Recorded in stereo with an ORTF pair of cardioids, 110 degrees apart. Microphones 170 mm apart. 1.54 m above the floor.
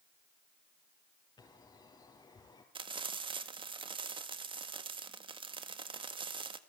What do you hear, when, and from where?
1.4 s a bird: 25° left, 5.5 m
2.8 s frying: 30° right, 1.8 m